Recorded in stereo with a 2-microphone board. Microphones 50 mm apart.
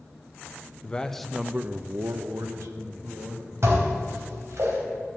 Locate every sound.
0.8 s a man speaking: 20° left (ahead or behind), 0.8 m; by 3.5 s 75° right (ahead or behind), 1.8 m
3.6 s dishes clattering: 65° right (ahead or behind), 3.5 m